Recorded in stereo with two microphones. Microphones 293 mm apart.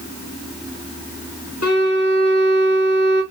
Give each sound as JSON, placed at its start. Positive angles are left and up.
{"t": 1.6, "sound": "a violin", "side_deg": 70, "distance_m": 4.0}